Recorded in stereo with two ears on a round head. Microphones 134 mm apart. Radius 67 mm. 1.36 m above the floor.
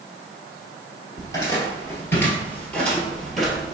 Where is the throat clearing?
I don't hear throat clearing.